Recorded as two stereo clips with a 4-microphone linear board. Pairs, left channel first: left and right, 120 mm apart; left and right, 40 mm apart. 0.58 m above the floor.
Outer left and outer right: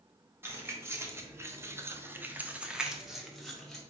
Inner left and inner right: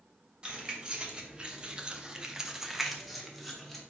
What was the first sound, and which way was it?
Keys jangling, 20° right (ahead or behind).